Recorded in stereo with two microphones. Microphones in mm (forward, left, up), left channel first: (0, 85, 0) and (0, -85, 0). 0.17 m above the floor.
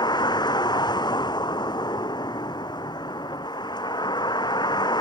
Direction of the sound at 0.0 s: 25° left (ahead or behind).